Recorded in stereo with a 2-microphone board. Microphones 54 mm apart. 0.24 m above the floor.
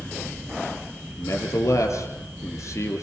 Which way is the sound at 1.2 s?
65° left (ahead or behind).